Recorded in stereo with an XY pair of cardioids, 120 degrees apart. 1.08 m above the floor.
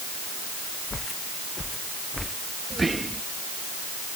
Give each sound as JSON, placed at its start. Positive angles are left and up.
{"t": 0.9, "sound": "footsteps", "azimuth_deg": 25}
{"t": 2.7, "sound": "whispering", "azimuth_deg": -20}